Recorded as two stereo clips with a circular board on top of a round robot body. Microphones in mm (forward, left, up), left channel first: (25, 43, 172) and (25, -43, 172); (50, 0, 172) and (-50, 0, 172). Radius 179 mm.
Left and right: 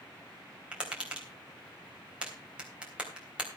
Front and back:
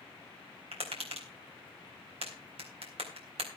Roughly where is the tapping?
Behind.